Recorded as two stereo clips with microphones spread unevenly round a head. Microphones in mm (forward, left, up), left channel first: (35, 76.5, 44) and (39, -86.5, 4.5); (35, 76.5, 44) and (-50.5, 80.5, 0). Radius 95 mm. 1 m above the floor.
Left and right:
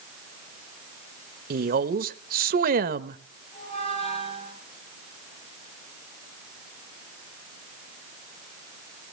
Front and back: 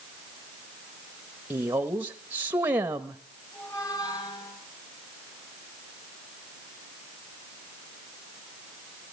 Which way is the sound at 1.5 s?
115° right.